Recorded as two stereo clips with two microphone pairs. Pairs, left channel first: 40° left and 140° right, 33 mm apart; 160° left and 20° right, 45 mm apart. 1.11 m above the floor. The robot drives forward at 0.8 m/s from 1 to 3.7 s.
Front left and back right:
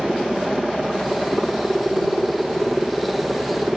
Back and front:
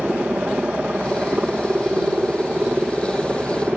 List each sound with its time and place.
0.0 s a helicopter: 60° right; by 3.8 s 65° right